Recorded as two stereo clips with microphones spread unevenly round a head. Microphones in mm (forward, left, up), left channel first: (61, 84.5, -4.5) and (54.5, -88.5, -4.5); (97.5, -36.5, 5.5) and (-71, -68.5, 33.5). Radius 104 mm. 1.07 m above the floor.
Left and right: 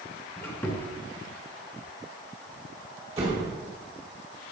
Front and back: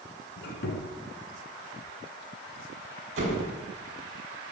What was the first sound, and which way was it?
A squeak, 10° left.